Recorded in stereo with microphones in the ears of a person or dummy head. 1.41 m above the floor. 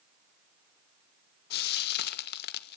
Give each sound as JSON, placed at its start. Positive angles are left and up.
{"t": 1.5, "sound": "frying", "side_deg": 55, "distance_m": 1.4}